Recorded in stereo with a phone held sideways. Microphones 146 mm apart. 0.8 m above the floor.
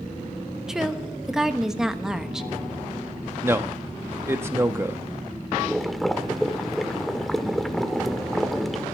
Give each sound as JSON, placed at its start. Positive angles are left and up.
{"t": 0.7, "sound": "a woman speaking", "side_deg": -5, "distance_m": 1.1}
{"t": 3.4, "sound": "a man speaking", "side_deg": -15, "distance_m": 0.9}
{"t": 5.6, "sound": "boiling", "side_deg": 0, "distance_m": 0.9}